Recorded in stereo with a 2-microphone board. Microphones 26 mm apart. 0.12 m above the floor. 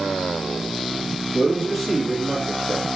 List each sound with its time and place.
1.3 s a man speaking: 10° right (ahead or behind), 1.8 m